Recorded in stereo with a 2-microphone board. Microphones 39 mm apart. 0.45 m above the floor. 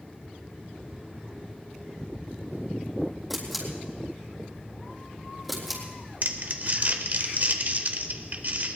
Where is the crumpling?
50° right (ahead or behind), 1.2 m.